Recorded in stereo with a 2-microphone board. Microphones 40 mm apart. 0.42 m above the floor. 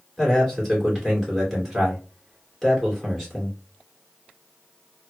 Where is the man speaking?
5° left (ahead or behind), 1.9 m.